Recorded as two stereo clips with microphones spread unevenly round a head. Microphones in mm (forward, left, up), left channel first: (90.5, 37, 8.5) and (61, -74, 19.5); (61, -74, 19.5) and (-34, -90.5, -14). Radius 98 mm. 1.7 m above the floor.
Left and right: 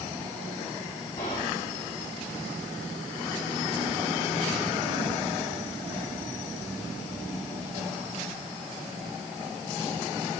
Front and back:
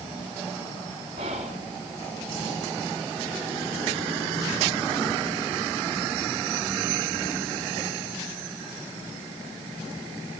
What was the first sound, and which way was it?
Whispering, 145° left.